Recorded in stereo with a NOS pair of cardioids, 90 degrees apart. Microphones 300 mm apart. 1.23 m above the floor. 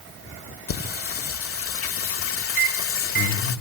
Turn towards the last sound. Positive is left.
turn(degrees=-40)